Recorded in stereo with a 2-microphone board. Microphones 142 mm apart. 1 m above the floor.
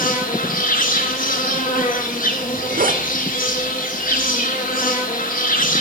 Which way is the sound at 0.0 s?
80° left.